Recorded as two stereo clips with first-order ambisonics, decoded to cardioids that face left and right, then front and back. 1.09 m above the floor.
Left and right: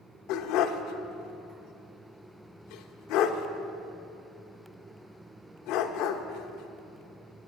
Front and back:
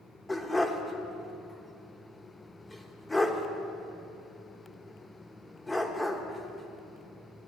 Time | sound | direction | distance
0.3 | a dog barking | 80° left | 1.0 m